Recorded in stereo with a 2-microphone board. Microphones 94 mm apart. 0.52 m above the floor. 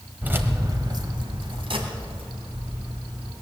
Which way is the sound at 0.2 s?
20° right (ahead or behind).